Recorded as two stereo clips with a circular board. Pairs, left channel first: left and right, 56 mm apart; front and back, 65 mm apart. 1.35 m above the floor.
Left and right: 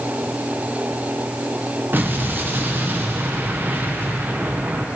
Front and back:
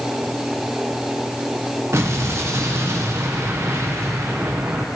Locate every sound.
1.9 s an explosion: 140° right, 1.1 m